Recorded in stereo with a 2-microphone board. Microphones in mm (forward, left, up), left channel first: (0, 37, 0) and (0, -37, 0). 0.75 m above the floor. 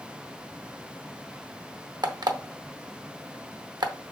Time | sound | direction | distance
2.0 | an alarm clock | 80° right | 0.7 m